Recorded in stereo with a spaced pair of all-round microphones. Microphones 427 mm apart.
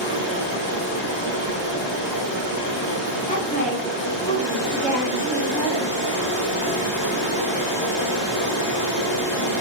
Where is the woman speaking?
20° left (ahead or behind), 1.2 m.